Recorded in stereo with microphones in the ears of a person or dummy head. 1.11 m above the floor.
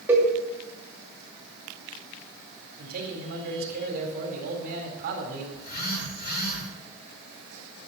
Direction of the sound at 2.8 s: 55° right (ahead or behind).